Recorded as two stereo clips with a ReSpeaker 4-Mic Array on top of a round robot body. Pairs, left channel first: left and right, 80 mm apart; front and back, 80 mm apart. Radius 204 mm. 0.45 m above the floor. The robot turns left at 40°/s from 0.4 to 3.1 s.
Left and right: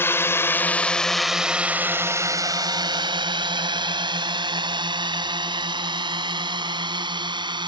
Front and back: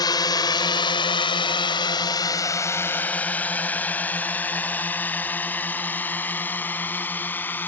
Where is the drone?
30° left; by 7.7 s 70° right.